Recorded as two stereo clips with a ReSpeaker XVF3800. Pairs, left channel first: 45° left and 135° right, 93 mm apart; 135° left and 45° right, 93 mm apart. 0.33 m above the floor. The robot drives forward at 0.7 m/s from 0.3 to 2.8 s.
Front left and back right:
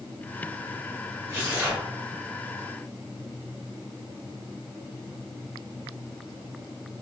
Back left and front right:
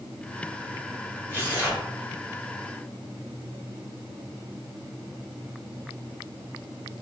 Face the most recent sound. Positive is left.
turn(degrees=180)